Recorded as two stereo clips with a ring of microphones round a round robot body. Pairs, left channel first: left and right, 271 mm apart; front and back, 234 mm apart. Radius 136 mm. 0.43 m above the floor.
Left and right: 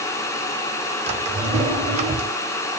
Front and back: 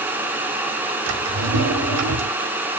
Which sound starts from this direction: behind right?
A drawer, at 1.1 s.